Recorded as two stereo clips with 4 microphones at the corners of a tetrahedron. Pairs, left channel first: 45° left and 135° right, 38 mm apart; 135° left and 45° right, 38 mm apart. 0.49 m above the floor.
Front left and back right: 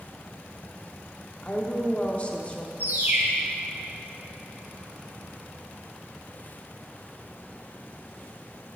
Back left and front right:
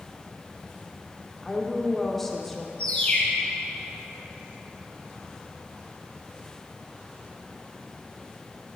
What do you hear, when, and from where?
1.4 s a woman speaking: 55° left, 0.8 m
2.8 s a bird: 170° right, 2.5 m